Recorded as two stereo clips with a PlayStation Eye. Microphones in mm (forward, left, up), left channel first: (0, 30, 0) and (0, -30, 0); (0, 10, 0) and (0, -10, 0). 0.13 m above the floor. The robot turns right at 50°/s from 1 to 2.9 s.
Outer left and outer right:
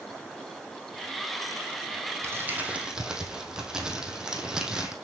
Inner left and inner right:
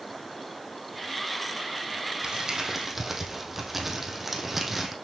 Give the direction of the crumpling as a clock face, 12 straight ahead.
2 o'clock.